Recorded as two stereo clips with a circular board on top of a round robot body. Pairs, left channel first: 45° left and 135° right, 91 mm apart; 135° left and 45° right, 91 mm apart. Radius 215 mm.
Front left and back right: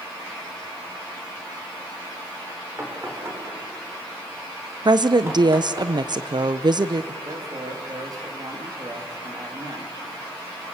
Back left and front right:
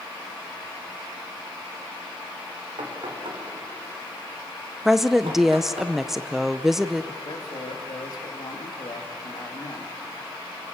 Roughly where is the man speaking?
Behind.